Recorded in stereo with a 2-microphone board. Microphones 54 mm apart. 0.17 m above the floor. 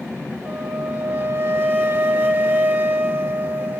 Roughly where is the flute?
Right.